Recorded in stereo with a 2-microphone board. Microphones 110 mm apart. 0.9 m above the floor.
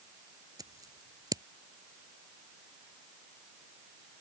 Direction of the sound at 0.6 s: 35° right (ahead or behind).